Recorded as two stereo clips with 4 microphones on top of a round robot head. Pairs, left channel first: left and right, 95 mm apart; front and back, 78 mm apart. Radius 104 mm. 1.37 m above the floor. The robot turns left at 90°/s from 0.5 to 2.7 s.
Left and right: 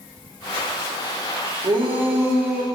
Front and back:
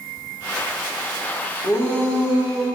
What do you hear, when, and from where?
1.6 s a shout: 40° right, 2.5 m; by 2.6 s 130° right, 2.5 m